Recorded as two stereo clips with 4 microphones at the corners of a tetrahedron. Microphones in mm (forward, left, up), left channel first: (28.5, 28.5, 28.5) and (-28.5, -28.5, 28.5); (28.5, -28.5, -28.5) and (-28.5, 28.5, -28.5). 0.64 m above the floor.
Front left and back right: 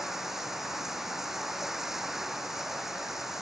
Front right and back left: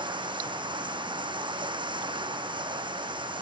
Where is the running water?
140° left.